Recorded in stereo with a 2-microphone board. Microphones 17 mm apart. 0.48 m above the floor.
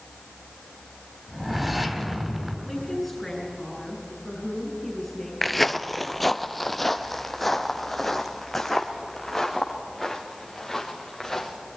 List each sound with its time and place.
1.3 s a whoosh: 10° right (ahead or behind), 2.5 m
2.7 s a woman speaking: 5° left (ahead or behind), 8 m
5.4 s footsteps: 5° left (ahead or behind), 0.5 m